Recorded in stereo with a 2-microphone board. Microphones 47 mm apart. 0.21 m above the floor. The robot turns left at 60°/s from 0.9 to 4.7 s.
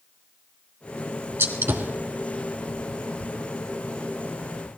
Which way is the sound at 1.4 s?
65° right (ahead or behind).